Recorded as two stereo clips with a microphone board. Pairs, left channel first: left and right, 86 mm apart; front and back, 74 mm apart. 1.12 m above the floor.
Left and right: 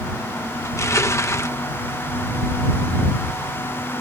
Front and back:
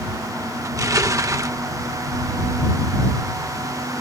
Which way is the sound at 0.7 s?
140° left.